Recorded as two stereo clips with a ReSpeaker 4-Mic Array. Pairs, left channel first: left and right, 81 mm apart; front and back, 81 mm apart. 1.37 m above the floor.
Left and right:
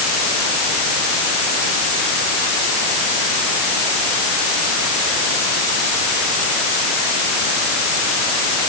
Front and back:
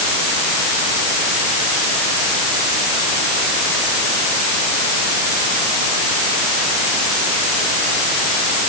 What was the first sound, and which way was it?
Only background noise.